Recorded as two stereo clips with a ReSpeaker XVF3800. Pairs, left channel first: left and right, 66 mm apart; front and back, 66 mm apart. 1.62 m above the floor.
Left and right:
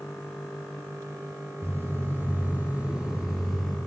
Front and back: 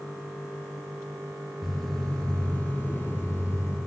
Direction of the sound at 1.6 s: 90° right.